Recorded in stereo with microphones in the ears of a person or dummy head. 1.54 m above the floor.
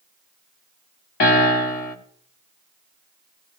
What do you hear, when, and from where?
1.2 s a piano: 40° left (ahead or behind), 1.3 m